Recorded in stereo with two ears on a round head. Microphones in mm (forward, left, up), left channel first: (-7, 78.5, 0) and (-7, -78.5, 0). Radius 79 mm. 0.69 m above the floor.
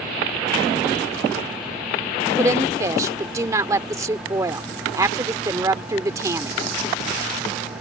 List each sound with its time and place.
2.4 s a woman speaking: 20° right (ahead or behind)